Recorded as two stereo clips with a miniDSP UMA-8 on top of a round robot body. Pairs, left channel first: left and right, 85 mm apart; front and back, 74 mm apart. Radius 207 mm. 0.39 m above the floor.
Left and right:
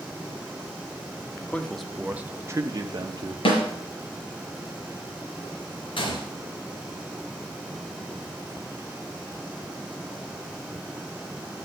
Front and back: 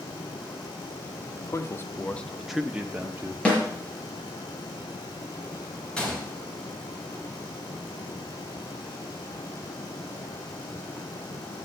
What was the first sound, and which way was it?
A man speaking, 20° left.